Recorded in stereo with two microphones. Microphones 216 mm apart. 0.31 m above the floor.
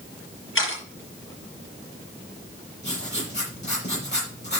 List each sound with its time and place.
0.6 s a camera shutter: 65° left (ahead or behind), 5.5 m
2.8 s writing: 50° left (ahead or behind), 6 m